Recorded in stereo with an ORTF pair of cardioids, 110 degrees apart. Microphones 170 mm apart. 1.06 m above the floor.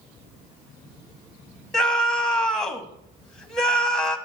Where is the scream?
5° left, 1.3 m.